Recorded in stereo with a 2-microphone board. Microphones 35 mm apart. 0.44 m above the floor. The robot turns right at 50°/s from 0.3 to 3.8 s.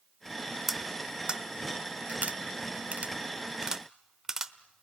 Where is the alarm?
I don't hear an alarm.